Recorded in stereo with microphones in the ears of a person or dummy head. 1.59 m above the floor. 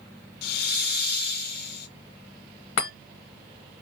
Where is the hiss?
55° left (ahead or behind), 0.9 m.